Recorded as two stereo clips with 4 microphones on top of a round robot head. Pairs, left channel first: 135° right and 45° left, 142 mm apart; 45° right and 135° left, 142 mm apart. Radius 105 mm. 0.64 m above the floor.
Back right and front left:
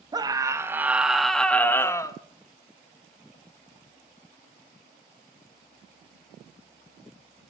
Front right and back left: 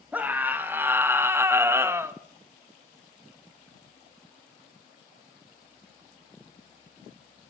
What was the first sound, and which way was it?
A scream, 65° left.